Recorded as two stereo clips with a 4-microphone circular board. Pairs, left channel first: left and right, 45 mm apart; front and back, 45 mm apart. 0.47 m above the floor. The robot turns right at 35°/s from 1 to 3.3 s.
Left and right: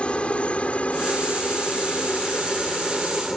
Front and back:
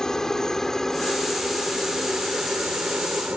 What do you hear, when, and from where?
0.0 s a helicopter: 65° left; by 3.4 s 170° left